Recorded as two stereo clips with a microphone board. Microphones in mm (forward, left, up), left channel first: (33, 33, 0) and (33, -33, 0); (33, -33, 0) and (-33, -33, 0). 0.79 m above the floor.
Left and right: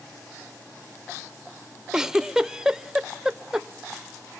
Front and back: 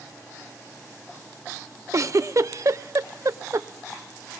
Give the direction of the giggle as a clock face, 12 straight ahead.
6 o'clock.